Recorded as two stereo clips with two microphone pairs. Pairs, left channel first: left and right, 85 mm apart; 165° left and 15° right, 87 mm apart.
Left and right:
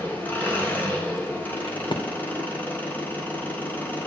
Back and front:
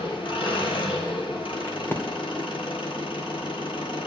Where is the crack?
100° left, 2 m.